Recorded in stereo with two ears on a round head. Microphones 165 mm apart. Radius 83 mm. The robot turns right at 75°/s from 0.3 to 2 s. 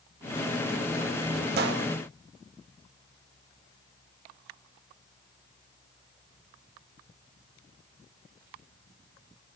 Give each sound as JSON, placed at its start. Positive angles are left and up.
{"t": 1.6, "sound": "a gunshot", "side_deg": -60, "distance_m": 1.6}